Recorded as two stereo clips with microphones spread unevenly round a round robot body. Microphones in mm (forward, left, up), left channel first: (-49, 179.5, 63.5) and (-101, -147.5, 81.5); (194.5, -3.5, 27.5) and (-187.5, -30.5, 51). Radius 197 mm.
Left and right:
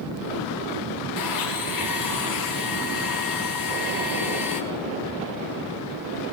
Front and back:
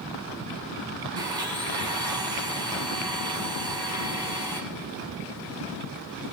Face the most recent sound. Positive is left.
turn(degrees=105)